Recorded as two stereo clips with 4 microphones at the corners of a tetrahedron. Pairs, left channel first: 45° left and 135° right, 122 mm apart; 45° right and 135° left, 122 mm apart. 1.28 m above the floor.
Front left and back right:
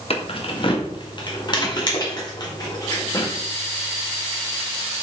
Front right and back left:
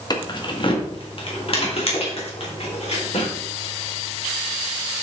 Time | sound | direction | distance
0.1 | keys jangling | 10° left | 1.2 m